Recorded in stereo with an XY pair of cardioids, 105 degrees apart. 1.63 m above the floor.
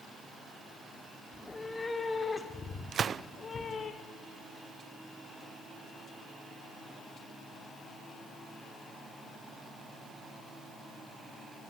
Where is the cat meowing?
15° left, 2.5 m; by 3.9 s 40° left, 4 m.